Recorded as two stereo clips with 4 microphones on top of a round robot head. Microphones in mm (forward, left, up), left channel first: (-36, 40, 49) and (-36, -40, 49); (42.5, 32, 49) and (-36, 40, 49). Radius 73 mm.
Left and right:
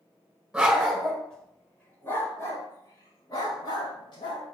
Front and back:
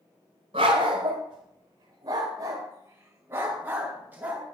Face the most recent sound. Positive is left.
turn(degrees=105)